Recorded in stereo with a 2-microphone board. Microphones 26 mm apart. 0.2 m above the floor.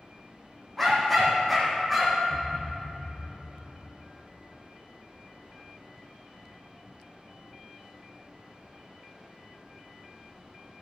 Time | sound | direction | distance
0.8 | a dog barking | 10° left (ahead or behind) | 3.5 m
2.3 | a thud | 25° right (ahead or behind) | 3.5 m